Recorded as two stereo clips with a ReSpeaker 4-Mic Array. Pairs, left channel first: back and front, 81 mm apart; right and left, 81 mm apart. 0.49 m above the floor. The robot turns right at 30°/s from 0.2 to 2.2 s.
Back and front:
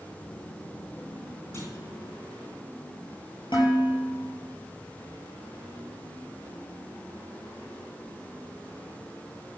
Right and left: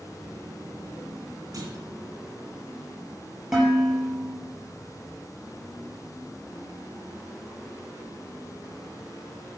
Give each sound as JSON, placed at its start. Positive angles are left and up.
{"t": 1.5, "sound": "a clunk", "azimuth_deg": 125, "distance_m": 3.0}
{"t": 3.5, "sound": "dishes clattering", "azimuth_deg": 170, "distance_m": 6.5}